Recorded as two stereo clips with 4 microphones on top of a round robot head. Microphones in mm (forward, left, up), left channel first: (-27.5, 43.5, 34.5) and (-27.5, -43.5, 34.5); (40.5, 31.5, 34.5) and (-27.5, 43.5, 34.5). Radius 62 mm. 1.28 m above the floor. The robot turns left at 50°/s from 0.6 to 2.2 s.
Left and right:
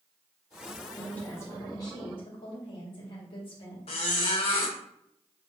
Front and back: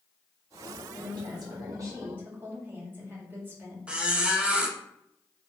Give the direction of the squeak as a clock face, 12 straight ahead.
9 o'clock.